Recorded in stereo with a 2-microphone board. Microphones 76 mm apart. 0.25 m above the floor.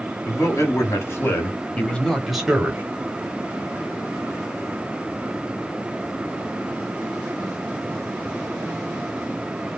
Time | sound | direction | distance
0.2 | a man speaking | 40° left (ahead or behind) | 1.9 m